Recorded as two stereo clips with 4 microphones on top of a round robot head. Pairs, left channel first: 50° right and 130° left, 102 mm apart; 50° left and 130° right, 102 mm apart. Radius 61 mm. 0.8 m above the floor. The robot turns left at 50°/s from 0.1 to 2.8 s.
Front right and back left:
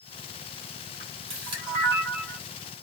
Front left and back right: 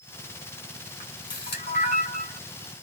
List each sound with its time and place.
1.0 s a camera shutter: 110° left, 1.4 m; by 2.4 s 40° left, 1.4 m